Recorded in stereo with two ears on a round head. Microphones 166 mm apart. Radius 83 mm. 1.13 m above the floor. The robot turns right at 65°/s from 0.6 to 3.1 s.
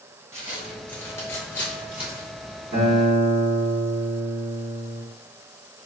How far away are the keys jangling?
No keys jangling in this recording.